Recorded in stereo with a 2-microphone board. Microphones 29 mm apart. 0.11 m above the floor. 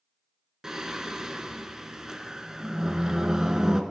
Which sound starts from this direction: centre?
Singing, at 0.6 s.